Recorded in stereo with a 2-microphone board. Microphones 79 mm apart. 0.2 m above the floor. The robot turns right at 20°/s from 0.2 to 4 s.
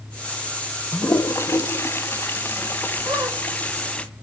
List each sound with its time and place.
0.9 s a toilet flushing: 35° left (ahead or behind), 0.6 m; by 4.0 s 15° left (ahead or behind), 0.6 m
3.0 s a squeak: 70° right (ahead or behind), 5 m; by 3.4 s 75° right (ahead or behind), 5 m